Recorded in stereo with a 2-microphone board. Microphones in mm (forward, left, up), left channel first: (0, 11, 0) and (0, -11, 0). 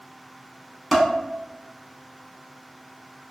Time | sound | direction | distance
0.9 | dishes clattering | centre (ahead or behind) | 0.7 m